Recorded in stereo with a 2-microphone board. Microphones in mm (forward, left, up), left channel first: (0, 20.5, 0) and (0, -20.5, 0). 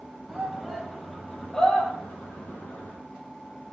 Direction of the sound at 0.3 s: 5° right (ahead or behind).